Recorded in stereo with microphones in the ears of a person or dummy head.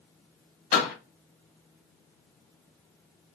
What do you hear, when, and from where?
0.7 s a door slam: 45° left (ahead or behind), 1.3 m